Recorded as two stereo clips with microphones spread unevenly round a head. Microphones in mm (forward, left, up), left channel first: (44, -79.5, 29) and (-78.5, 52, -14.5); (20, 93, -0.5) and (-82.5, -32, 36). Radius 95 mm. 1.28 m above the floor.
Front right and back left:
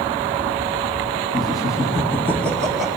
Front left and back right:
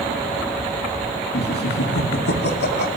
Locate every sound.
1.3 s laughter: 25° left, 2.5 m; by 3.0 s 50° left, 1.8 m